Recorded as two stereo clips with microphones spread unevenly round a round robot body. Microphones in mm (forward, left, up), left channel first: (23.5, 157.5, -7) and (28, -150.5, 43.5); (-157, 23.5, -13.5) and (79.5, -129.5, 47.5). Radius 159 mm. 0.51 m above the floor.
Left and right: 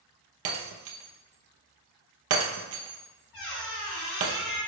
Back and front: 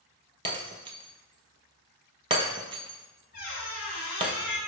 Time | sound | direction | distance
0.5 | breaking glass | 85° right | 0.7 m
3.3 | a squeak | 85° left | 1.9 m